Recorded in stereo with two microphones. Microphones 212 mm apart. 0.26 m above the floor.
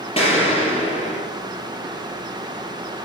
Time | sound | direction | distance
0.2 | an explosion | 25° left (ahead or behind) | 6 m